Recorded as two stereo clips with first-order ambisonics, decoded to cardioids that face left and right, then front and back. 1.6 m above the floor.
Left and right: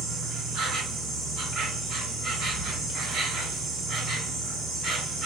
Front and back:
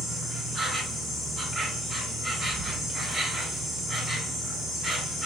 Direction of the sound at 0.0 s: 90° right.